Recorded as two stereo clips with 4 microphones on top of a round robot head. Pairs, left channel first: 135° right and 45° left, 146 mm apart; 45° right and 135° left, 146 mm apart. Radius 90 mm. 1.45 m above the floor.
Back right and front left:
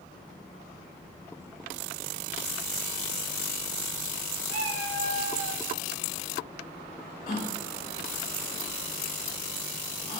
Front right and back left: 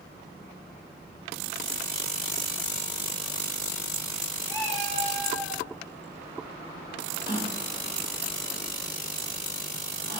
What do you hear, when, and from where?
4.5 s a cat meowing: 30° left, 3.5 m; by 5.6 s 25° left, 2.5 m
7.3 s a gasp: 95° right, 1.7 m